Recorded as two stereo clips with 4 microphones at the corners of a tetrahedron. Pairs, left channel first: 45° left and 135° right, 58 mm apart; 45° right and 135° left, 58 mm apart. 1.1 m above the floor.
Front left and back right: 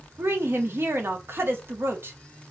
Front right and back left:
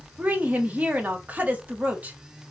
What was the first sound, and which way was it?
A woman speaking, 165° right.